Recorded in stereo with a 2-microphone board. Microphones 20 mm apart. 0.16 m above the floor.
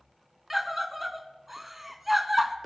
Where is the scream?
10° right (ahead or behind), 1.4 m.